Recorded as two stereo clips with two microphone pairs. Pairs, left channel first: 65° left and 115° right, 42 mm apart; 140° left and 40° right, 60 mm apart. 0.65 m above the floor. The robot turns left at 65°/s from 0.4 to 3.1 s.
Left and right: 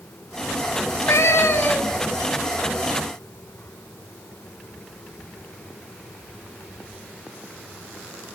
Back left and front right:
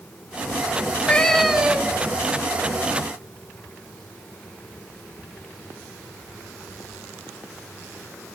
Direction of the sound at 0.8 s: 90° left.